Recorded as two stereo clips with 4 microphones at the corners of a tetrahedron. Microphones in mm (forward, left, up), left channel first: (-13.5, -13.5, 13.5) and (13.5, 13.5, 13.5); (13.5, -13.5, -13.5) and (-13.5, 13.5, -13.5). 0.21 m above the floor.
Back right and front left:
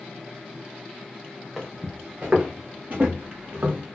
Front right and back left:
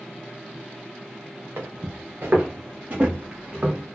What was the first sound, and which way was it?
Footsteps, 125° left.